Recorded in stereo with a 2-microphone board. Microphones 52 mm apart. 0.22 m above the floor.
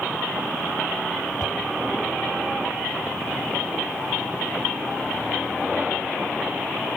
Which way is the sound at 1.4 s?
80° left.